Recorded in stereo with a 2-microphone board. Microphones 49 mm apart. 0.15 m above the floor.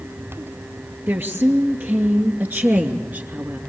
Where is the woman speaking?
50° right (ahead or behind), 3 m; by 3.6 s 40° right (ahead or behind), 1.9 m.